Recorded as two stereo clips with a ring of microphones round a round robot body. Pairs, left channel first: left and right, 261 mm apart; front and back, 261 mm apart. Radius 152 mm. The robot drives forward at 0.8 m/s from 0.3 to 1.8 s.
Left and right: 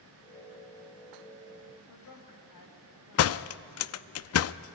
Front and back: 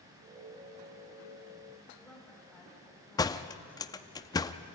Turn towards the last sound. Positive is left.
turn(degrees=75)